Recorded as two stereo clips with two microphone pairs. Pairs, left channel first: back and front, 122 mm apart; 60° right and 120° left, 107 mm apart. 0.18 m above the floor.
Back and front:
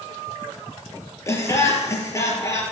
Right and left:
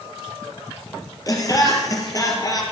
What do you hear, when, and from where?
1.3 s laughter: 115° right, 4 m